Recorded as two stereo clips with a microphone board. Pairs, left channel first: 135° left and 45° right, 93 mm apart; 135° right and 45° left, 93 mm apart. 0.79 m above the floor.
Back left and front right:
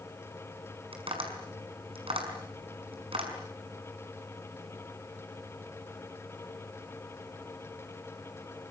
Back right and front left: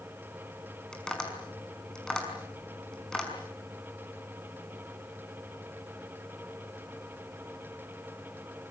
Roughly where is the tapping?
Ahead right.